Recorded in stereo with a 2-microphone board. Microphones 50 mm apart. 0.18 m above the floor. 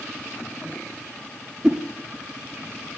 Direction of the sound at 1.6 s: 15° right (ahead or behind).